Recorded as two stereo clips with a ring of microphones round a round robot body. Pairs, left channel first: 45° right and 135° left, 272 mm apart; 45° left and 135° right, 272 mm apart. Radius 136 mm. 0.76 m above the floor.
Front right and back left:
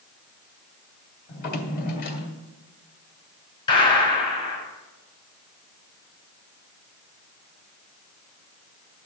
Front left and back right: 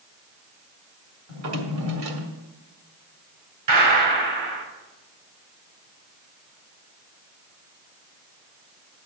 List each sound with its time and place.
1.3 s a drawer: 100° right, 2 m
3.7 s a gunshot: 120° right, 4.5 m